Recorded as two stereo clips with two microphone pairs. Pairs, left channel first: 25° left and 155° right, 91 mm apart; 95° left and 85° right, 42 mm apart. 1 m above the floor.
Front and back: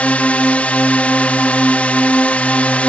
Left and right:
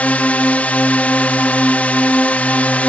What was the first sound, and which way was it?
A drone, 90° left.